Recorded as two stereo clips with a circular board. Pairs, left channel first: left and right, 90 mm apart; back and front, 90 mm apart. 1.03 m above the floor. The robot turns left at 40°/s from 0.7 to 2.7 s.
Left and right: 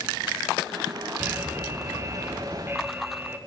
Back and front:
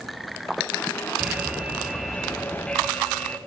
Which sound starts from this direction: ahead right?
An alarm, at 1.2 s.